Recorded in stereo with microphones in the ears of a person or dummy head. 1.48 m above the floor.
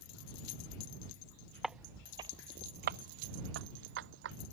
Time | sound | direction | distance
1.6 | footsteps | centre (ahead or behind) | ?